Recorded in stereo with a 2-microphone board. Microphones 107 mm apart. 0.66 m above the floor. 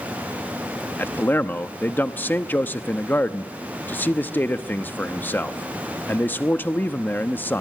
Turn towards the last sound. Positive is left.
turn(degrees=20)  # may be behind; listen again after turning